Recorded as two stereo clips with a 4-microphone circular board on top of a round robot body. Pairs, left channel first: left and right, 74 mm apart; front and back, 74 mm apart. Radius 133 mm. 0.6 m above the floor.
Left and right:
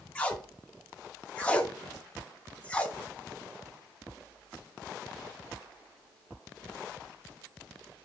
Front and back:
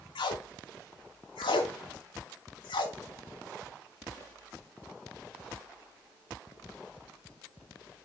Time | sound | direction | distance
0.1 | tape being pulled | 15° left | 0.5 m